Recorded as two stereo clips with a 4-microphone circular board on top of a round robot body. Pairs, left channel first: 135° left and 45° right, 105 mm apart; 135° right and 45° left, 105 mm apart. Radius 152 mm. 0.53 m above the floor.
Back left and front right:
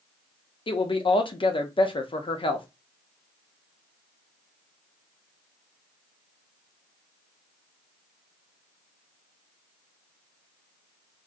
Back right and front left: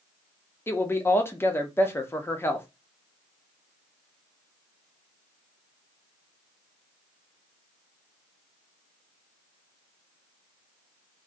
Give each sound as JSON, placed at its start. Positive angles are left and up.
{"t": 0.7, "sound": "a woman speaking", "azimuth_deg": 160, "distance_m": 1.2}